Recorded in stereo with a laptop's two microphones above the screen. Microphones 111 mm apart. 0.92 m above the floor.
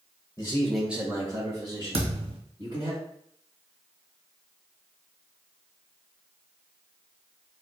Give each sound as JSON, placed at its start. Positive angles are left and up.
{"t": 0.4, "sound": "a man speaking", "side_deg": 30, "distance_m": 0.7}
{"t": 1.9, "sound": "a thud", "side_deg": -55, "distance_m": 1.6}